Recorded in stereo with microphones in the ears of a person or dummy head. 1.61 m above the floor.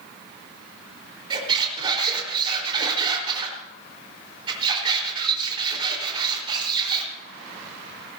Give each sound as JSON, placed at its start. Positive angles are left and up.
{"t": 1.3, "sound": "a squeak", "side_deg": -35, "distance_m": 4.0}